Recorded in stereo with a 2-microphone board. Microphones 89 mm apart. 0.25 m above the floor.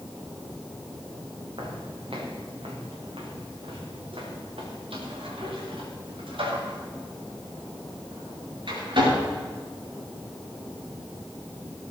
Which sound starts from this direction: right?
Footsteps, at 1.6 s.